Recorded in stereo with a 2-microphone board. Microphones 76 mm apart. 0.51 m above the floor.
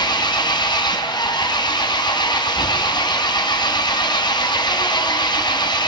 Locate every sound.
0.0 s an engine running: 80° left, 2.5 m